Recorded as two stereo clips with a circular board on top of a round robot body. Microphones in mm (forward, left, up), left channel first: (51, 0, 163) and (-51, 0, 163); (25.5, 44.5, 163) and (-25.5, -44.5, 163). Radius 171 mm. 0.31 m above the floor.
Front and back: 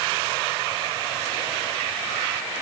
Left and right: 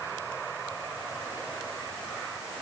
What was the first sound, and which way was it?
Only background noise.